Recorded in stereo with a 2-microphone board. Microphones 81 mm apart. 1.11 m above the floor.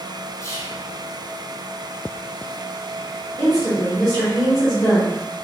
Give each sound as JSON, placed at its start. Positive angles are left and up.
{"t": 0.4, "sound": "whispering", "side_deg": 35, "distance_m": 0.7}
{"t": 3.4, "sound": "a woman speaking", "side_deg": 15, "distance_m": 1.6}